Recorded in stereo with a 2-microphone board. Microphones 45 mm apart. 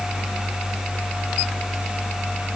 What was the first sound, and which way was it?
Only background noise.